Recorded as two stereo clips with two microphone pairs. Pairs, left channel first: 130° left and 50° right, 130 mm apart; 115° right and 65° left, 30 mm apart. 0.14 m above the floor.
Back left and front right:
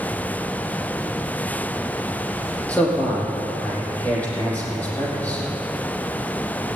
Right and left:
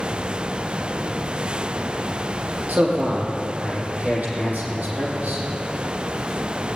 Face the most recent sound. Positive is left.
turn(degrees=50)